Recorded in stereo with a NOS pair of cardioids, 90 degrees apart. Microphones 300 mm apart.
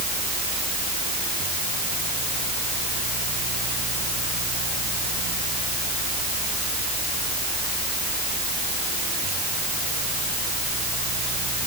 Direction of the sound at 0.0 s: 65° right.